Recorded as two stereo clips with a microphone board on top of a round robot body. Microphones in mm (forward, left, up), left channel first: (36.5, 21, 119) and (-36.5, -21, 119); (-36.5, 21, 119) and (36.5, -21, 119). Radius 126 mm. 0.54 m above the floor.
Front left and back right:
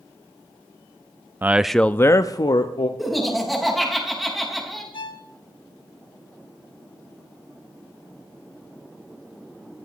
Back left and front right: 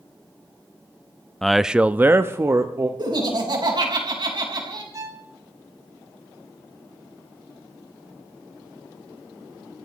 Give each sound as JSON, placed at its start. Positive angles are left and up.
{"t": 1.4, "sound": "a man speaking", "azimuth_deg": -135, "distance_m": 0.6}
{"t": 3.0, "sound": "laughter", "azimuth_deg": -60, "distance_m": 4.5}
{"t": 4.9, "sound": "a violin", "azimuth_deg": 15, "distance_m": 1.6}